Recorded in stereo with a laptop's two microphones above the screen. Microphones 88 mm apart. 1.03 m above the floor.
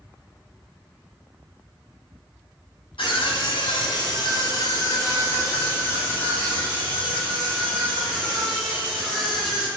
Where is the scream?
70° left (ahead or behind), 1.6 m; by 9.7 s 5° left (ahead or behind), 4 m.